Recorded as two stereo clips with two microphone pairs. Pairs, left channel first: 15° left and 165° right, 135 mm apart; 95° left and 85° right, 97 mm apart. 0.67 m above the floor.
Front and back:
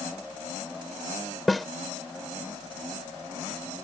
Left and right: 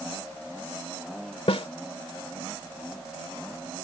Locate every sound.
1.5 s a snare drum: 105° left